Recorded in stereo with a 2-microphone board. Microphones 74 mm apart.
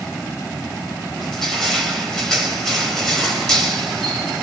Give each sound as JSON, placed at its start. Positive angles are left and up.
{"t": 1.2, "sound": "crushing", "side_deg": 5, "distance_m": 4.5}